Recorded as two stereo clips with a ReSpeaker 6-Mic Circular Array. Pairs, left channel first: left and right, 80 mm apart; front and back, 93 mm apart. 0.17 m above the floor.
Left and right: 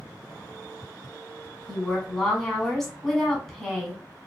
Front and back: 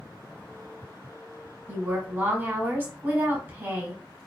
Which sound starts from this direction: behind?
A woman speaking, at 1.7 s.